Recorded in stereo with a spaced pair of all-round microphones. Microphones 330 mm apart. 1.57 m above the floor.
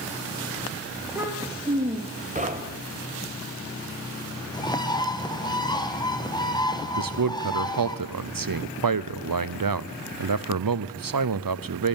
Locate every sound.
1.0 s a child speaking: 5° right (ahead or behind), 1.9 m; by 2.5 s 30° right (ahead or behind), 1.5 m
2.4 s knocking: 20° right (ahead or behind), 1.3 m
4.5 s a bird: 10° left (ahead or behind), 0.9 m
7.0 s a man speaking: 75° right (ahead or behind), 0.6 m